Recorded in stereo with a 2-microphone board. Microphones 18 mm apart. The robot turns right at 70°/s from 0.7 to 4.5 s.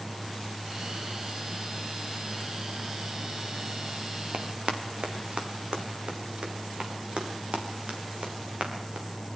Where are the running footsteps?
65° right (ahead or behind), 3 m; by 9.1 s 75° right (ahead or behind), 6.5 m.